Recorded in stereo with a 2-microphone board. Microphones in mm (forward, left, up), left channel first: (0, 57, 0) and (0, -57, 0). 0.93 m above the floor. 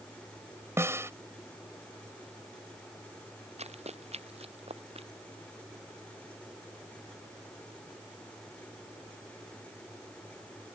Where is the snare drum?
20° right (ahead or behind).